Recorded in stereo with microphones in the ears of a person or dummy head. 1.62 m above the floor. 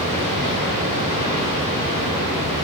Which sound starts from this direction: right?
Running water, at 0.0 s.